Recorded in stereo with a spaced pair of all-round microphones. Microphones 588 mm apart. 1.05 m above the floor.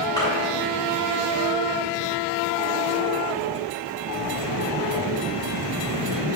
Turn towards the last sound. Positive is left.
turn(degrees=5)  # may be behind; listen again after turning